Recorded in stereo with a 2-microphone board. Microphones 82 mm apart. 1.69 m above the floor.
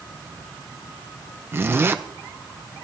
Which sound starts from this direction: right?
A zipper, at 1.5 s.